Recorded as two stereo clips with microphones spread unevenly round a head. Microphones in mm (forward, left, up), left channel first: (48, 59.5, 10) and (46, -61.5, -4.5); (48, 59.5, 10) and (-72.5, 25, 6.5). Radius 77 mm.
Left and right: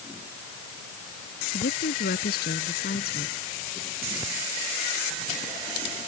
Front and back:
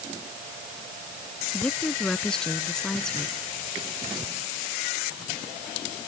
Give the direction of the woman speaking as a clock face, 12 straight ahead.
9 o'clock.